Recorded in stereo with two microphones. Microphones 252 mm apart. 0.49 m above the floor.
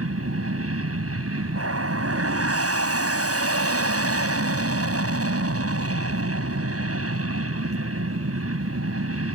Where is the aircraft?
65° right (ahead or behind).